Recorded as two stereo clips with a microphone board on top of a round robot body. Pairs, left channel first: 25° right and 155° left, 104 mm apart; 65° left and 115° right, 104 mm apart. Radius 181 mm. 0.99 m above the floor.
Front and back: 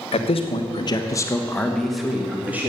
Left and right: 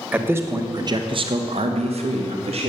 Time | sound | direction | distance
0.1 | a man speaking | 40° right | 1.6 m